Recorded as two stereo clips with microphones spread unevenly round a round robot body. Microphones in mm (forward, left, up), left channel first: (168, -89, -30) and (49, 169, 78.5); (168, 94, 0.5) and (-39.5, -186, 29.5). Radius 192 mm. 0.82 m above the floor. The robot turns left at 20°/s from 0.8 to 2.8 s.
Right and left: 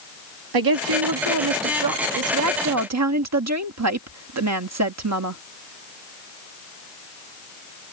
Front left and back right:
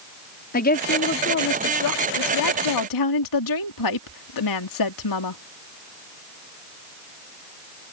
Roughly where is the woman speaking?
Behind left.